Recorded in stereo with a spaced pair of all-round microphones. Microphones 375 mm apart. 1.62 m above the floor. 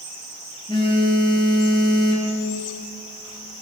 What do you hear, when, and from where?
0.7 s a phone buzzing: 10° left (ahead or behind), 6.5 m